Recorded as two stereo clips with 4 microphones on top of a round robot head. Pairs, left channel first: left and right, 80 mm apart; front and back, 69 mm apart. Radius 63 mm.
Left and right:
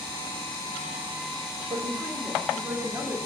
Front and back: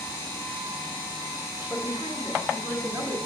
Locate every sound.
1.7 s a woman speaking: 105° right, 2 m; by 3.1 s 150° right, 1.5 m